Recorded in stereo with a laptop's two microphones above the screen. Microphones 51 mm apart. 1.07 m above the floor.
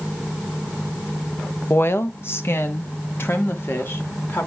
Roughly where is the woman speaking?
Left.